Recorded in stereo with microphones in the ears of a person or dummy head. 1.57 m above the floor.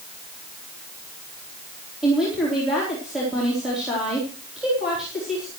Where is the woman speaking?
Centre (ahead or behind), 4 m.